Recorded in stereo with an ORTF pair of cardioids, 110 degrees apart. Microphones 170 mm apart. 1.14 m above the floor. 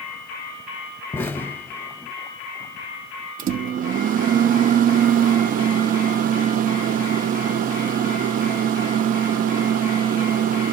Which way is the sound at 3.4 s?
50° right.